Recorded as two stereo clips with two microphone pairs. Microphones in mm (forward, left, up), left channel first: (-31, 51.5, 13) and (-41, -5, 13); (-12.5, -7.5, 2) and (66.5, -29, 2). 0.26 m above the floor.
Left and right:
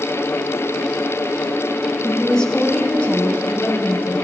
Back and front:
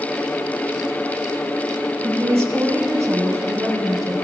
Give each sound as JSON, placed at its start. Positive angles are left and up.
{"t": 2.0, "sound": "a woman speaking", "azimuth_deg": 0, "distance_m": 1.1}